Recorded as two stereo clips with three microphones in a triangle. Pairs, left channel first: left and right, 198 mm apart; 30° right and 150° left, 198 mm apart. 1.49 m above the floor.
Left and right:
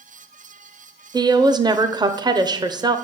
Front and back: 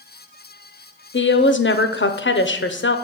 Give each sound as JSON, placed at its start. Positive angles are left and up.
{"t": 1.1, "sound": "a woman speaking", "azimuth_deg": -20, "distance_m": 0.6}